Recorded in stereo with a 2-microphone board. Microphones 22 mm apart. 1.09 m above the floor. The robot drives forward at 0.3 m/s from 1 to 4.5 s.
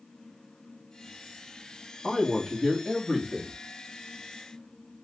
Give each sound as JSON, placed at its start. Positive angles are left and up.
{"t": 2.0, "sound": "a man speaking", "side_deg": 5, "distance_m": 1.4}